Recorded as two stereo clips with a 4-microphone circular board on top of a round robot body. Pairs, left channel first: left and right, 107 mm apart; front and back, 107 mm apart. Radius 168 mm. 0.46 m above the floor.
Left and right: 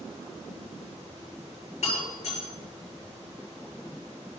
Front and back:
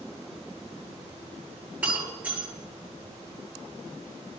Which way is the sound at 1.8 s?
105° left.